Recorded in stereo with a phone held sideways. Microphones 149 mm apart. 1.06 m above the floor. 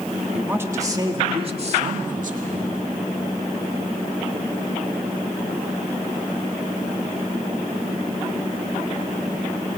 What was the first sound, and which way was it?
A woman speaking, 10° right (ahead or behind).